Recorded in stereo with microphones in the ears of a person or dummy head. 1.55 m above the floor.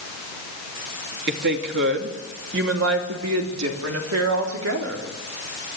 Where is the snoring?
I don't hear snoring.